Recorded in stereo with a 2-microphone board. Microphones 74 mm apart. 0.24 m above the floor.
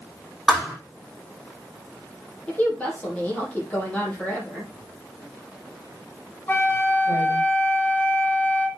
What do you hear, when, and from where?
0.5 s a thud: 5° left (ahead or behind), 6 m
2.5 s a woman speaking: 20° left (ahead or behind), 6 m
4.7 s writing: 40° left (ahead or behind), 6 m
6.5 s a flute: 25° left (ahead or behind), 2 m